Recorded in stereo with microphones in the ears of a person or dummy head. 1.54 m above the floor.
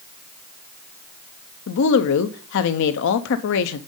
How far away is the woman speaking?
About 0.6 m.